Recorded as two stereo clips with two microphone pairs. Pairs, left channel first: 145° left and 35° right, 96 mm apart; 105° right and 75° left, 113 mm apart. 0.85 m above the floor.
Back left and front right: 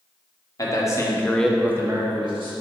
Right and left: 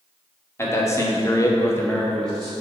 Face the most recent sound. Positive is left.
turn(degrees=-20)